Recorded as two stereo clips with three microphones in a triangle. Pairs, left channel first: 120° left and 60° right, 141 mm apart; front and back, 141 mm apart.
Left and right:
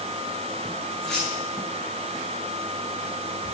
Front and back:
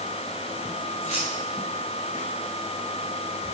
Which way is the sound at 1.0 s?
35° left.